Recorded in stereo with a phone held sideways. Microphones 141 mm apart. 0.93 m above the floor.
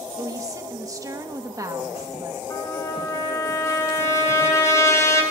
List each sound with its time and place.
0.2 s a woman speaking: 25° right (ahead or behind), 1.4 m
2.5 s a trumpet: 20° left (ahead or behind), 3 m